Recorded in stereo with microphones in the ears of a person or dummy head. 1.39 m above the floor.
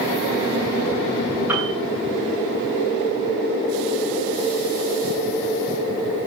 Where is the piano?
20° right (ahead or behind), 8.5 m.